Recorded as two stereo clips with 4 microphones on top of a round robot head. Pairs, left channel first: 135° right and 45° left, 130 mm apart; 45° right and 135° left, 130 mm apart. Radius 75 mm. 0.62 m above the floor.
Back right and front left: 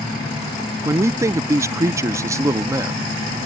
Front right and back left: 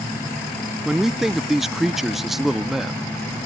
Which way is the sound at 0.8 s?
50° left.